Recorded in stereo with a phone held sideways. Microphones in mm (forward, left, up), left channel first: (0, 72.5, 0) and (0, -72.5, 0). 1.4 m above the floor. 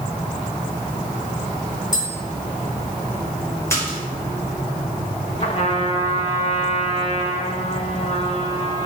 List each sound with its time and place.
1.9 s tapping: 30° left (ahead or behind), 4.5 m
3.7 s a splash: 20° left (ahead or behind), 5 m
5.4 s a trumpet: 45° left (ahead or behind), 1.9 m